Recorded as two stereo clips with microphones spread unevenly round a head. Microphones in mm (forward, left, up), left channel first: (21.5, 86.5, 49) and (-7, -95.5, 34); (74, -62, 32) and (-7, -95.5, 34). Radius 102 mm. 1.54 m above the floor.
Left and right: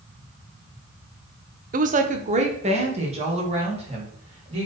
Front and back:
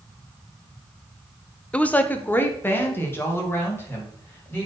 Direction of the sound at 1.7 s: 55° right.